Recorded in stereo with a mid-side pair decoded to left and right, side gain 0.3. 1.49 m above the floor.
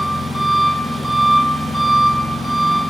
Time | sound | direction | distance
0.0 | an engine running | 25° left | 1.5 m